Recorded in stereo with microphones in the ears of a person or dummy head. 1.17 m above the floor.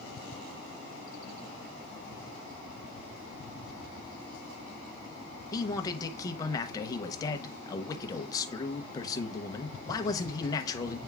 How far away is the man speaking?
About 0.9 m.